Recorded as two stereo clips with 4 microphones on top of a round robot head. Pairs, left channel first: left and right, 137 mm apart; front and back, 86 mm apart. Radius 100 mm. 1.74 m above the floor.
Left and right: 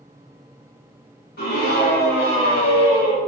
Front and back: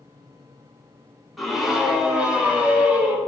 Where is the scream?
95° left, 5.5 m; by 3.2 s 110° left, 7 m.